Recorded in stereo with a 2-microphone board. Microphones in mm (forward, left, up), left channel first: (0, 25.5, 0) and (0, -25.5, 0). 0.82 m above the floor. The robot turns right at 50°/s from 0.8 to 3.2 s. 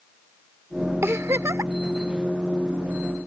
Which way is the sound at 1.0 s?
120° right.